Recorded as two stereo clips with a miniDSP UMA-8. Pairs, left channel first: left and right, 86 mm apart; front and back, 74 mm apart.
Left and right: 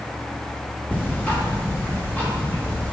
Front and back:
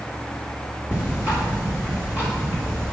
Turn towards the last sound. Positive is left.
turn(degrees=145)